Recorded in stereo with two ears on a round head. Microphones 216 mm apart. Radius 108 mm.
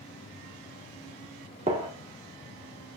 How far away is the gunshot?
About 1.2 m.